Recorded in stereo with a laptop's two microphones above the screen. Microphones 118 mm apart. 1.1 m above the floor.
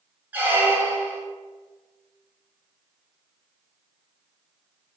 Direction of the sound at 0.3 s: 15° right (ahead or behind).